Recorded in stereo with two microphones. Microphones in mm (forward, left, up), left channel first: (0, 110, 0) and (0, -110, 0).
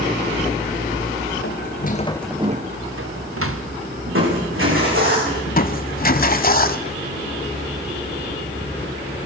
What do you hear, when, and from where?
1.4 s footsteps: 55° left (ahead or behind), 1.5 m; by 3.7 s 80° right, 2 m
4.1 s crushing: 65° right (ahead or behind), 10 m
5.5 s crushing: 40° left (ahead or behind), 1.0 m